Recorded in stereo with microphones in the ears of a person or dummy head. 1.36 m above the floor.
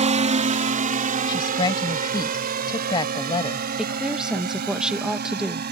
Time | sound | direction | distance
0.0 | a drone | 35° right (ahead or behind) | ?
1.3 | a woman speaking | 25° left (ahead or behind) | ?
3.8 | a woman speaking | 5° right (ahead or behind) | ?